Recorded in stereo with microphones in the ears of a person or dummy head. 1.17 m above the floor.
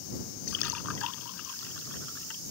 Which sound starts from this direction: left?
A splash, at 0.5 s.